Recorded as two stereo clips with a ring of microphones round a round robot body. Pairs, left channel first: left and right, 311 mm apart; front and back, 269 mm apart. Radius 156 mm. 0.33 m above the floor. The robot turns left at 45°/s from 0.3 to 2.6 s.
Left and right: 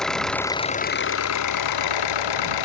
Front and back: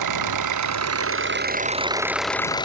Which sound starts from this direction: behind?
An engine running, at 0.0 s.